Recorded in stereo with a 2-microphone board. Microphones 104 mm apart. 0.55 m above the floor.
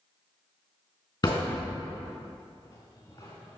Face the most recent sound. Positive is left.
turn(degrees=35)  # may be behind; listen again after turning